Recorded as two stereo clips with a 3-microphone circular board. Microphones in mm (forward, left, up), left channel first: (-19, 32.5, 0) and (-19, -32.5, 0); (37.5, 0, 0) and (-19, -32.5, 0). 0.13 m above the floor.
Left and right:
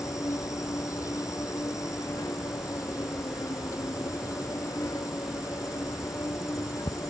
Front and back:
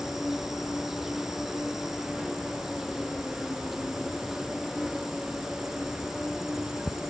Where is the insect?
125° left.